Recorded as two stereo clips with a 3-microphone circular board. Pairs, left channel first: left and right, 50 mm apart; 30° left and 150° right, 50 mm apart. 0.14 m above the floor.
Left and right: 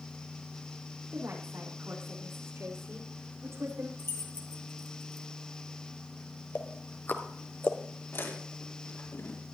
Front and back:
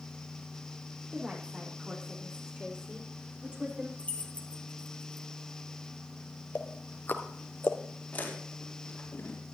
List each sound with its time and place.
1.1 s a woman speaking: 90° right, 6.5 m; by 3.9 s 80° right, 7.5 m
4.0 s keys jangling: 85° left, 2.0 m
6.5 s ticking: 60° left, 1.3 m
8.1 s chewing: 75° left, 4 m